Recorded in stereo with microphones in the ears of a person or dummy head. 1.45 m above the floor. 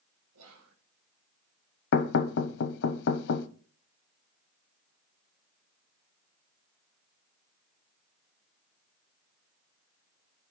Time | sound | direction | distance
0.3 | whispering | 85° right | 1.4 m
1.9 | knocking | 60° left (ahead or behind) | 0.5 m